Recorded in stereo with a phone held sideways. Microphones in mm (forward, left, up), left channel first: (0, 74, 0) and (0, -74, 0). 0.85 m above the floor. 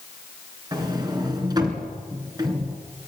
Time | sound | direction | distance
0.7 | a sliding door | 30° right (ahead or behind) | 2.5 m